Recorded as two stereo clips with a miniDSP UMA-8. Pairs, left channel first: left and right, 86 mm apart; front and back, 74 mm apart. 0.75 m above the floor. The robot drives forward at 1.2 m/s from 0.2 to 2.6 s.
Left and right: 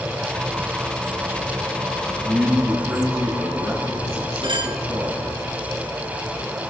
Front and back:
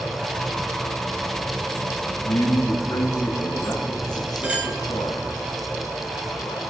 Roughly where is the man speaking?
Ahead.